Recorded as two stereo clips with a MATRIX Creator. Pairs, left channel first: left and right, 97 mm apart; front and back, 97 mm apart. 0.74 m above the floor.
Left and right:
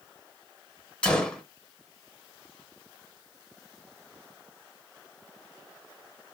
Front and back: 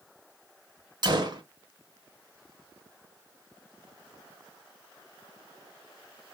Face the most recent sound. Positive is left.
turn(degrees=165)